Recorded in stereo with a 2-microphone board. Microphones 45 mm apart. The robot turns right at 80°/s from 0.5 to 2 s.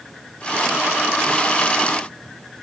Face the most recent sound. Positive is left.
No sound to turn to.